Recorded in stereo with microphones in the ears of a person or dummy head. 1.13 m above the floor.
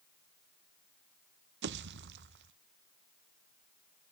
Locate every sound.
1.6 s a pop: 55° right (ahead or behind), 0.5 m